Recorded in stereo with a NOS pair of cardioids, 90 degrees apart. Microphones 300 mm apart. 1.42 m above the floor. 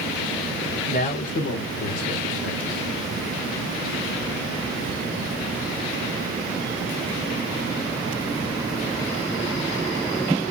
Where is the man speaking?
25° left, 1.4 m; by 2.9 s 75° left, 1.5 m.